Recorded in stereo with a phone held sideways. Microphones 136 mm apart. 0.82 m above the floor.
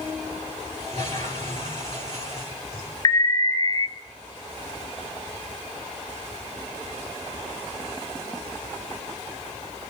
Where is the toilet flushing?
45° left (ahead or behind), 7 m.